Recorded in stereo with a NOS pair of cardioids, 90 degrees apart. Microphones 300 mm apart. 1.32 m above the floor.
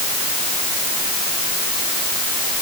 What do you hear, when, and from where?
Only background noise.